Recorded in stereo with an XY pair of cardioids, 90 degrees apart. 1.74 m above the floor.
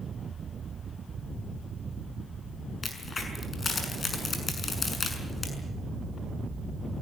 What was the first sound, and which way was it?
A crack, 40° left.